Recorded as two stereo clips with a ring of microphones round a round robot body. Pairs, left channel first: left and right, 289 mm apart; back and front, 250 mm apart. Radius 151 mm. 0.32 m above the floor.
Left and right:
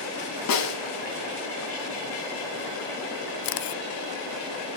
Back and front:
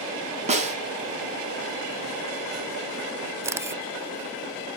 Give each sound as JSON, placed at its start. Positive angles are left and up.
{"t": 0.5, "sound": "a snare drum", "azimuth_deg": 60, "distance_m": 3.5}
{"t": 3.4, "sound": "a camera shutter", "azimuth_deg": 80, "distance_m": 0.6}